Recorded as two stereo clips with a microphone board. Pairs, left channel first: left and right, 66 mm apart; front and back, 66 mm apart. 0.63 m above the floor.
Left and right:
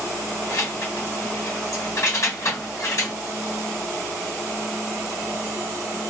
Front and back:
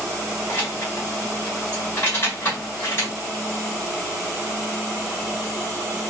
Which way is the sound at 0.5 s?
50° left.